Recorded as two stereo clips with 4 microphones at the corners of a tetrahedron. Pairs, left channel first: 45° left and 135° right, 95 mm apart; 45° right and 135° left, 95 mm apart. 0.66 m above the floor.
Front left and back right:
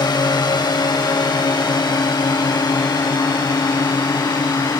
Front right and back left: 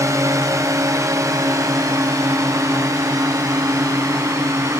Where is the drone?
80° left; by 4.8 s 85° left.